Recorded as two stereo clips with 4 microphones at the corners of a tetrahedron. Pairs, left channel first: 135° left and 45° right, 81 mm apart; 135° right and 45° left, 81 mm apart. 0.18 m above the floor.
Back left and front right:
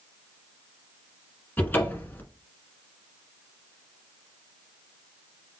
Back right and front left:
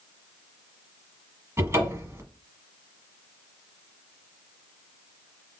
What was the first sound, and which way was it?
A cupboard door, 80° left.